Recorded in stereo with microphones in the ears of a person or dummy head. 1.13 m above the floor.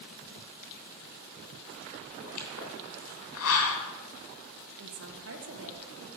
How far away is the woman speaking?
About 1.6 m.